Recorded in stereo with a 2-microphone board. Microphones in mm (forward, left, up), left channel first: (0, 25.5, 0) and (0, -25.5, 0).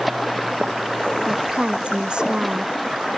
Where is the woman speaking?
20° right (ahead or behind).